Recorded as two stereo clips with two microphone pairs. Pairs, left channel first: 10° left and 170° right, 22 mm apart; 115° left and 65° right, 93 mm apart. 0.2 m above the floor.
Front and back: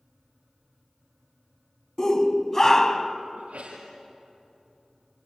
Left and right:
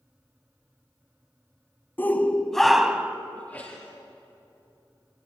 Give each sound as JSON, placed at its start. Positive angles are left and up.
{"t": 2.0, "sound": "a shout", "azimuth_deg": 60, "distance_m": 1.3}
{"t": 3.4, "sound": "a sneeze", "azimuth_deg": 180, "distance_m": 4.0}